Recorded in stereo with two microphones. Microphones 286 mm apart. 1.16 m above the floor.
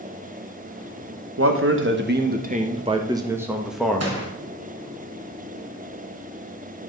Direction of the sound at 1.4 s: 50° right (ahead or behind).